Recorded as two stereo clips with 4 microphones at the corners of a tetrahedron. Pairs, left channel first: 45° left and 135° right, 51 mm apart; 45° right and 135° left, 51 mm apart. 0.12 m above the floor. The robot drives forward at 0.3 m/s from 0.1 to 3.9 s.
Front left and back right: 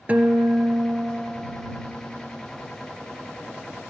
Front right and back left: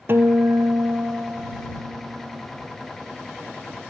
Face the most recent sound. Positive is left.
turn(degrees=175)